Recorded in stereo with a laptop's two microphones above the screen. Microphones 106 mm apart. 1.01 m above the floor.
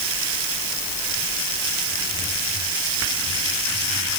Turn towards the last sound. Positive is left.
No sound to turn to.